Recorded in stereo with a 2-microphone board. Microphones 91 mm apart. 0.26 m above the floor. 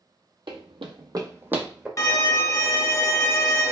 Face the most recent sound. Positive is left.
turn(degrees=40)  # may be behind; listen again after turning